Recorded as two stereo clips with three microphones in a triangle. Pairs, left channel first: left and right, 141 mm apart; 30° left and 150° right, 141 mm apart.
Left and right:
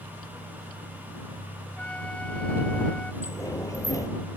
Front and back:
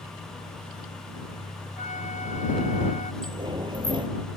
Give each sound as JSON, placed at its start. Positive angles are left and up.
{"t": 1.8, "sound": "a flute", "azimuth_deg": 10}
{"t": 3.2, "sound": "a sliding door", "azimuth_deg": 155}